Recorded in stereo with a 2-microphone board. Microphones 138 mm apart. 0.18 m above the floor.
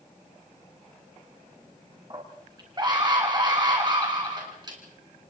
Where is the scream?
30° right (ahead or behind), 2 m.